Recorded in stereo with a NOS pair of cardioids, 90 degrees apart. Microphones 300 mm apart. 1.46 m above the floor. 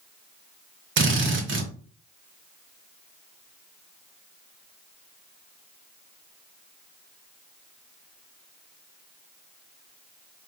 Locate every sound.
1.0 s a drill: 40° right, 1.2 m